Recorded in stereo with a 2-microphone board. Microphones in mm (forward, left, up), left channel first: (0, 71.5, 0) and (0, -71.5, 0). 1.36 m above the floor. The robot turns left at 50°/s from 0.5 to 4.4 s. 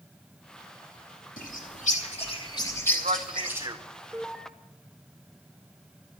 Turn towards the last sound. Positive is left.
turn(degrees=5)  # may be behind; listen again after turning